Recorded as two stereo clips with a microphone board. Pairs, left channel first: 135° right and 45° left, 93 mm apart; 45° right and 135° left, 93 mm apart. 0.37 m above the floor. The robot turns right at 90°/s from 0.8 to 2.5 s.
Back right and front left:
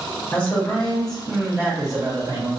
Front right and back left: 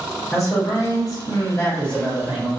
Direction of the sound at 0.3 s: 75° right.